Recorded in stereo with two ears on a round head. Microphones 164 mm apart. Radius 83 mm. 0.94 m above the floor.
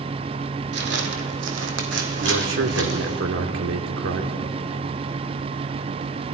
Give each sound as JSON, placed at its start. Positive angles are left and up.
{"t": 0.7, "sound": "footsteps", "side_deg": -65, "distance_m": 2.5}
{"t": 2.2, "sound": "a man speaking", "side_deg": -85, "distance_m": 2.0}